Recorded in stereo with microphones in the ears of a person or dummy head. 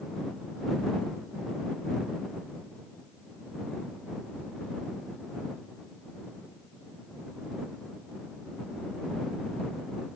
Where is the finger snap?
No finger snap in this recording.